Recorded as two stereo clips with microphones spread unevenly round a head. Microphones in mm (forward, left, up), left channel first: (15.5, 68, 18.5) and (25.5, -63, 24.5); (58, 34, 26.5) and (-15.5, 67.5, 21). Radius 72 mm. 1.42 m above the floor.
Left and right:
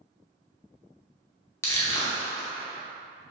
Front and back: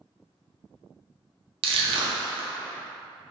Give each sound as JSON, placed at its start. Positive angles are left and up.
{"t": 1.6, "sound": "crushing", "azimuth_deg": 170, "distance_m": 0.5}